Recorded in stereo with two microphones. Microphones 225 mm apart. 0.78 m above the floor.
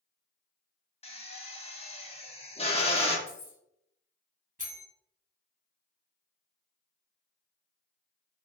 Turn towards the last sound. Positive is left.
turn(degrees=-35)  # may be behind; listen again after turning